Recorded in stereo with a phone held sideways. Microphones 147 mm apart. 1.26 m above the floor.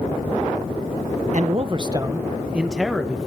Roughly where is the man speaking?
Right.